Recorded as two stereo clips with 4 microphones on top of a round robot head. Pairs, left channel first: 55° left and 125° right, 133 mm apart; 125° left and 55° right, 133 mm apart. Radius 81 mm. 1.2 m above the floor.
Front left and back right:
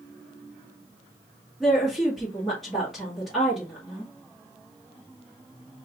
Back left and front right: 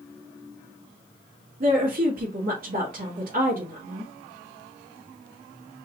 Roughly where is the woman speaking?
Ahead right.